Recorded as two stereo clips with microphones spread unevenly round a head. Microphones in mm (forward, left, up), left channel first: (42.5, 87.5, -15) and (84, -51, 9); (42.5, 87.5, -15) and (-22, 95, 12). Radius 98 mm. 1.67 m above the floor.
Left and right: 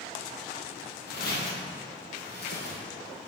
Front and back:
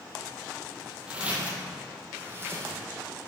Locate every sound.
1.1 s footsteps: 120° left, 3 m; by 2.8 s 140° left, 4.5 m